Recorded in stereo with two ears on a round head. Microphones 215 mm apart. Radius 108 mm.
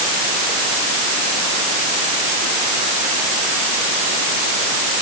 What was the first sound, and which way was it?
Only background noise.